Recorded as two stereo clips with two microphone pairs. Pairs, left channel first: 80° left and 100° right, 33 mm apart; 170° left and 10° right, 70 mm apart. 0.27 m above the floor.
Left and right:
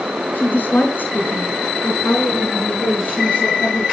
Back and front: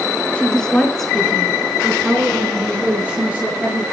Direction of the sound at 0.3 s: 95° left.